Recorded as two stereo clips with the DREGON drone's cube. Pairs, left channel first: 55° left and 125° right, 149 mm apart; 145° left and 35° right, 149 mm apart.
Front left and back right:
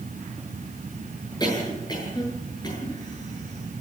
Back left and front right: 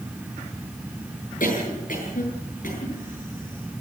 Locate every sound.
1.4 s a cough: 120° left, 8 m